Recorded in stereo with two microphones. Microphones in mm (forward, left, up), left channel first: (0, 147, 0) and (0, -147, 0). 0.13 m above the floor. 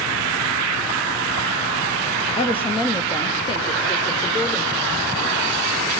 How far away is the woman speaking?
About 3.5 m.